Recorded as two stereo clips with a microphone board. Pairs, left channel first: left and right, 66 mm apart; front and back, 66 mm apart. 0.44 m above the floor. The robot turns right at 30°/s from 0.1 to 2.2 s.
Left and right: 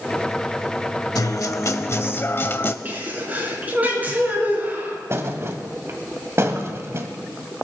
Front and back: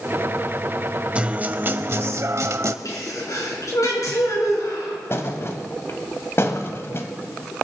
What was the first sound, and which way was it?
A guitar, 110° left.